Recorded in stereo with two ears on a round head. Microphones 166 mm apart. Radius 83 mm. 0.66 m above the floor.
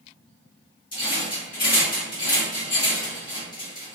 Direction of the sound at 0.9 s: 25° left (ahead or behind).